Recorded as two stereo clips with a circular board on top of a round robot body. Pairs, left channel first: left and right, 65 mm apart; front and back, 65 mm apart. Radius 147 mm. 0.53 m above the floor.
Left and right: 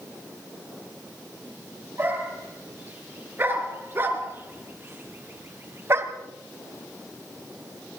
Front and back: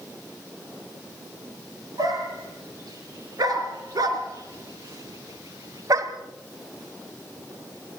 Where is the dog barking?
150° right, 5 m; by 6.1 s 140° right, 1.4 m.